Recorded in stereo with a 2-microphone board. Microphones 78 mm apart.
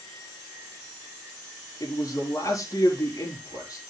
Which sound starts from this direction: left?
A man speaking, at 1.8 s.